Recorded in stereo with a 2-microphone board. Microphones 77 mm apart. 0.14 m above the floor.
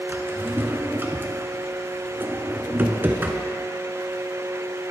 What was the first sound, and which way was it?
A drawer, 30° right (ahead or behind).